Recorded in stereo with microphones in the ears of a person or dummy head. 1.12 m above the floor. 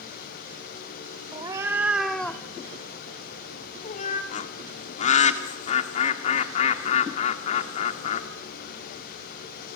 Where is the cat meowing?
30° right (ahead or behind), 1.2 m; by 4.2 s 50° left (ahead or behind), 2.0 m.